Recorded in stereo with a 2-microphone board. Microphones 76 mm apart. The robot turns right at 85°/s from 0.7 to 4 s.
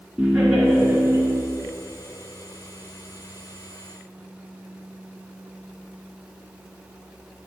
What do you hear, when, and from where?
0.2 s laughter: 175° right, 1.7 m; by 1.4 s 115° right, 1.7 m